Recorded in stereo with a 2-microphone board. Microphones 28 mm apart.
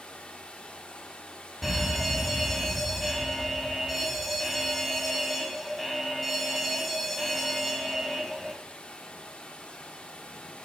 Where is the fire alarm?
Centre (ahead or behind), 2 m.